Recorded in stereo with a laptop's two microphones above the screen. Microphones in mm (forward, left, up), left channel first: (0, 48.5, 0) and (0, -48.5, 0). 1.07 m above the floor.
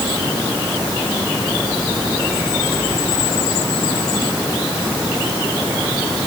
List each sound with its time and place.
Only background noise.